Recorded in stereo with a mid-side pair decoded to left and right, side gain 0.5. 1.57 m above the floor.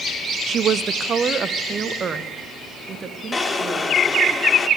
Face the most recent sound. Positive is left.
turn(degrees=25)